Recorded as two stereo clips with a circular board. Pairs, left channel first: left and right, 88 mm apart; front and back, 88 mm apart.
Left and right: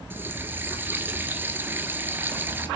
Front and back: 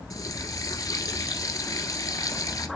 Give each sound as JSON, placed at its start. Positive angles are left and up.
{"t": 0.1, "sound": "a running tap", "azimuth_deg": -30, "distance_m": 1.3}